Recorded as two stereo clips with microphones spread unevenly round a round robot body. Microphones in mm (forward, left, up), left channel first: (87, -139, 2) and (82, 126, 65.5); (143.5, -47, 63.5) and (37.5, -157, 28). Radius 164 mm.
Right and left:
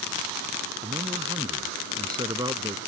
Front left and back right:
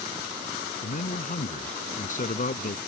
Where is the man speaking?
15° left.